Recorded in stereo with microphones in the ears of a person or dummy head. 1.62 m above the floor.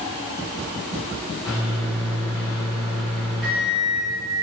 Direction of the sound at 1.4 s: 5° right (ahead or behind).